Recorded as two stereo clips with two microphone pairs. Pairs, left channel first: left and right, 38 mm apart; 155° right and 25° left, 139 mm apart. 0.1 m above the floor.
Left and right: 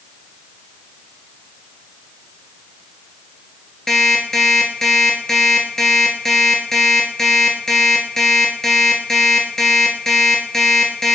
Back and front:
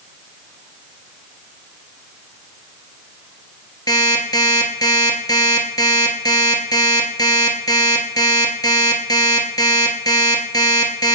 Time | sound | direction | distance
3.9 | an alarm clock | 160° left | 1.1 m